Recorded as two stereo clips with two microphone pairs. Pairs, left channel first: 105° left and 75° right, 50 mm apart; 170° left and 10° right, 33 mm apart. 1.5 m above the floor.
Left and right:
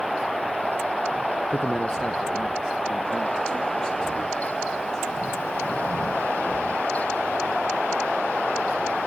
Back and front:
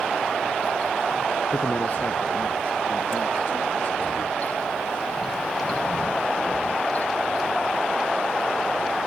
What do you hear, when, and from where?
1.5 s a man speaking: 175° right, 0.6 m; by 5.2 s 150° right, 4 m